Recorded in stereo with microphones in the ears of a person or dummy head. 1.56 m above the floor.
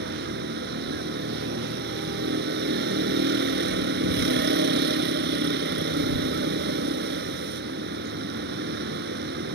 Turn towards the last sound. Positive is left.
turn(degrees=-55)  # may be behind; listen again after turning